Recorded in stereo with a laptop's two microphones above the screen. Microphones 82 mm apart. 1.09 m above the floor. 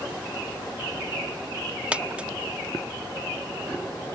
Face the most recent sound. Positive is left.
turn(degrees=-15)  # may be behind; listen again after turning